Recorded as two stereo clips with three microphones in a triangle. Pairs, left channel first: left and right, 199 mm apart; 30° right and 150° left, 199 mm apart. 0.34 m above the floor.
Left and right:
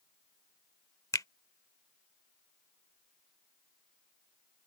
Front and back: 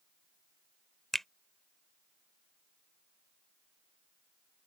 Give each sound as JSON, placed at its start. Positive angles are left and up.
{"t": 1.1, "sound": "a finger snap", "azimuth_deg": 55}